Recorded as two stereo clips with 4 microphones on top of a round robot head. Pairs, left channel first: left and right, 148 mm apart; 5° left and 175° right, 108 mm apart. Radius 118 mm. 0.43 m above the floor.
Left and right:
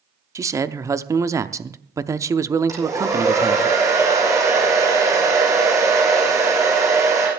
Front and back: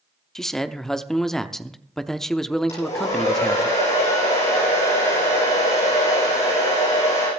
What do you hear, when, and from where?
0.3 s a man speaking: 75° right, 0.7 m
2.7 s a hair dryer: 20° right, 8.5 m